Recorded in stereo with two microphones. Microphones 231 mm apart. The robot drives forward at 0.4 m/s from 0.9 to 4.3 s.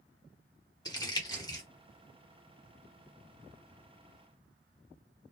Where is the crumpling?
15° left (ahead or behind), 1.4 m.